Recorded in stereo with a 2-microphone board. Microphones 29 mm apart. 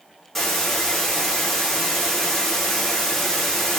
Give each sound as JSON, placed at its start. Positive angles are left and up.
{"t": 0.3, "sound": "a hiss", "side_deg": 5, "distance_m": 8.0}